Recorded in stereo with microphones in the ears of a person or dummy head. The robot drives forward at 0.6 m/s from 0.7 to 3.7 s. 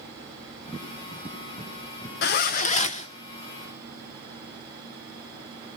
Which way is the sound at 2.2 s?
45° left (ahead or behind).